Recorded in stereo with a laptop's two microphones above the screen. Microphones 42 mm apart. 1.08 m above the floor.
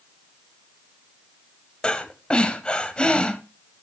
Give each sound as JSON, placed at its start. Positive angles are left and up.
{"t": 1.8, "sound": "breathing", "side_deg": 25, "distance_m": 1.4}